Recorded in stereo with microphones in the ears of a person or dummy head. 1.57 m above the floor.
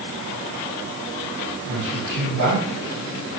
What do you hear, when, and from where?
1.7 s a man speaking: 60° right (ahead or behind), 4.5 m